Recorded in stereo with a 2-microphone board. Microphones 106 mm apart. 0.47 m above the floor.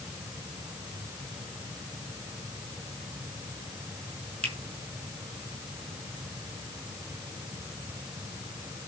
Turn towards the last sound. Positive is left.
turn(degrees=-65)  # may be behind; listen again after turning